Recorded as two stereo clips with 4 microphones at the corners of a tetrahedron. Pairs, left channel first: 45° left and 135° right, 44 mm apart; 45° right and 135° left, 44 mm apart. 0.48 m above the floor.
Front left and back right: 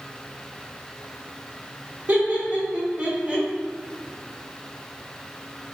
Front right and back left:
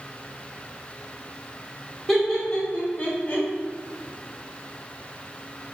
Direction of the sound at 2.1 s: 130° right.